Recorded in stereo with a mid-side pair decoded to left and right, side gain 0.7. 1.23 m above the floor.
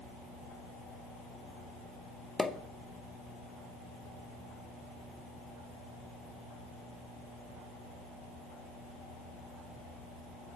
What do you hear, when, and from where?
2.4 s a pop: 10° left, 0.5 m